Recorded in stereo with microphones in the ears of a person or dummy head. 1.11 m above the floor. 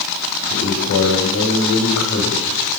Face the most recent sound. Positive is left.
turn(degrees=70)  # may be behind; listen again after turning